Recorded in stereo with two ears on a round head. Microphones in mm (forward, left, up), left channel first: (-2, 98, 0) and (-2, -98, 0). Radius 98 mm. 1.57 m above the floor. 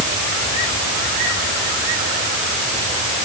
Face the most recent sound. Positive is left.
No sound to turn to.